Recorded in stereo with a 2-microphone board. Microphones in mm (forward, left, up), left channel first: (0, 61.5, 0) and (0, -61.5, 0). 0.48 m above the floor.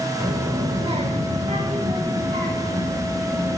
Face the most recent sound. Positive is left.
turn(degrees=-65)  # may be behind; listen again after turning